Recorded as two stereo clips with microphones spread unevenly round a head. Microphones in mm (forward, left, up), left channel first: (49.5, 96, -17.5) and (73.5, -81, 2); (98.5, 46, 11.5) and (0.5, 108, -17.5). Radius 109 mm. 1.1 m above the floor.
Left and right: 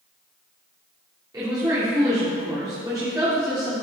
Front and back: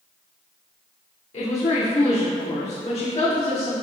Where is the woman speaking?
10° right, 2.5 m.